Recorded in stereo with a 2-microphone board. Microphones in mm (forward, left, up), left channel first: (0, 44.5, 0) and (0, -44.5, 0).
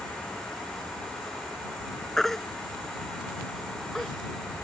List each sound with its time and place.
2.2 s a baby crying: 5° left (ahead or behind)